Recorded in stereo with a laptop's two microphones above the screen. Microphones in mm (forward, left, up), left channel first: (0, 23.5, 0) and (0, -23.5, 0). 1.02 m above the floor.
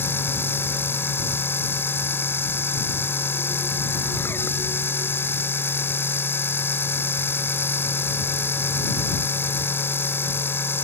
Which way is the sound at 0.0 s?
50° left (ahead or behind).